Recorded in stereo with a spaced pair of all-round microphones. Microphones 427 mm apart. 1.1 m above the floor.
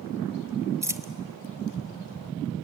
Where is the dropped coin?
5° right (ahead or behind), 0.9 m.